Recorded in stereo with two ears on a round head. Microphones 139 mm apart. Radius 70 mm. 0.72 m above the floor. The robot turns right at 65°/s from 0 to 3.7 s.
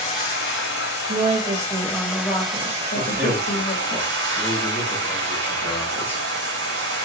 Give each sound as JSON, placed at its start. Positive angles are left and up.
{"t": 0.0, "sound": "running water", "azimuth_deg": 35, "distance_m": 2.0}
{"t": 1.1, "sound": "a woman speaking", "azimuth_deg": -60, "distance_m": 0.9}
{"t": 3.0, "sound": "a man speaking", "azimuth_deg": -30, "distance_m": 1.0}